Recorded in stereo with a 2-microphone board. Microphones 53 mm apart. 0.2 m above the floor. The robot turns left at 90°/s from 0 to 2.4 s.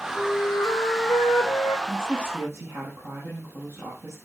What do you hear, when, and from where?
0.1 s a flute: 165° left, 9.5 m; by 1.8 s 20° left, 9.5 m
1.9 s a woman speaking: 20° right, 8.5 m; by 4.2 s 70° right, 8.5 m